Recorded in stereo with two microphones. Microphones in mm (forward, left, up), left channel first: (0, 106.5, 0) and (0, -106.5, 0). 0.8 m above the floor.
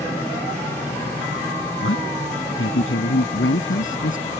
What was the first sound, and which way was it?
A man speaking, 75° left (ahead or behind).